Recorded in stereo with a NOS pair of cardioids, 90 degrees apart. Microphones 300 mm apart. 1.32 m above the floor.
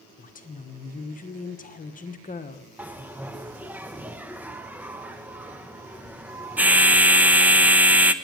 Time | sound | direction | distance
0.2 | a woman speaking | 30° left | 1.2 m
2.8 | a bell | 5° right | 0.7 m